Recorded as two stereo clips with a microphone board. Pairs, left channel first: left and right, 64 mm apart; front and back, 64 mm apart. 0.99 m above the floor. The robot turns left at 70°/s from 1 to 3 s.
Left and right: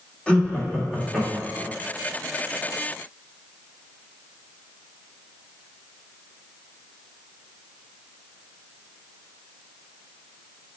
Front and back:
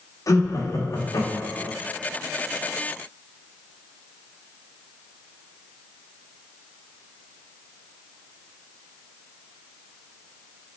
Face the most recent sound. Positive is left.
turn(degrees=-125)